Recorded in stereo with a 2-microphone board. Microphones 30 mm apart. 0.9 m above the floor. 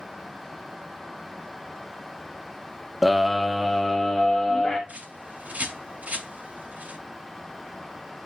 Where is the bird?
60° right (ahead or behind), 2.5 m.